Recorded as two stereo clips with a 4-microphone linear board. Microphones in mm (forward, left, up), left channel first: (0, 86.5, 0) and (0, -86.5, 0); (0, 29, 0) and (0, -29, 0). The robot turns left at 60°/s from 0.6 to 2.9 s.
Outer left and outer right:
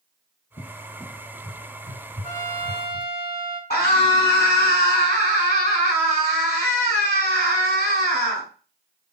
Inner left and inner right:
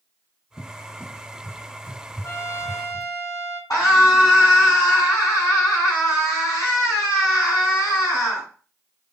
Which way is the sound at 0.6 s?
35° left (ahead or behind).